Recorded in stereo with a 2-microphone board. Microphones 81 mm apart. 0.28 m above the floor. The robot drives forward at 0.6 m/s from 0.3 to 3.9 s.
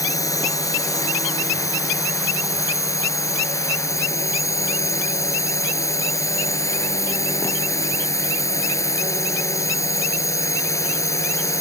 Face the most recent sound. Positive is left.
turn(degrees=40)  # may be behind; listen again after turning